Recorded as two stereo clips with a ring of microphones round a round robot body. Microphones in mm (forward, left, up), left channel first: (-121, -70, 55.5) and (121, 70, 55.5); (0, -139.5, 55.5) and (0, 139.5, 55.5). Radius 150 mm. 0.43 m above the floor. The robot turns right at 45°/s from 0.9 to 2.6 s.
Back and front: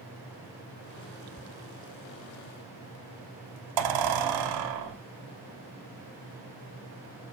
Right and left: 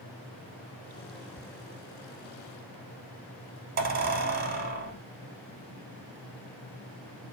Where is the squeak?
25° right, 0.7 m; by 5.0 s 30° left, 0.7 m.